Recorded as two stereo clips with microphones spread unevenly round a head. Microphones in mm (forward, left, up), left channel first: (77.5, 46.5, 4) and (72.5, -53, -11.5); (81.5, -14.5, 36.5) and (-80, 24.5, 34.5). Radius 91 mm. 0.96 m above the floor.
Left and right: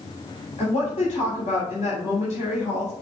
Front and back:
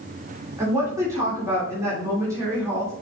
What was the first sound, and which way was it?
A woman speaking, 95° left.